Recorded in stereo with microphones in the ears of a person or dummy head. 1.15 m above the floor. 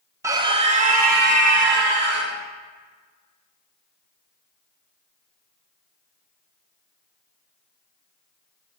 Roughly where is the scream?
Centre.